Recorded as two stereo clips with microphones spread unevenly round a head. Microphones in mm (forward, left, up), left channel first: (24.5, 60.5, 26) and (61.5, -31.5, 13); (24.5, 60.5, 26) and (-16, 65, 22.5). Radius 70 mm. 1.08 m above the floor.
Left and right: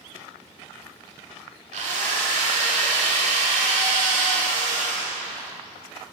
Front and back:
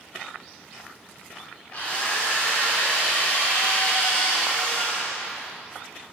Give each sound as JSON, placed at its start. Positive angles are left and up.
{"t": 1.7, "sound": "a drill", "azimuth_deg": -80, "distance_m": 1.4}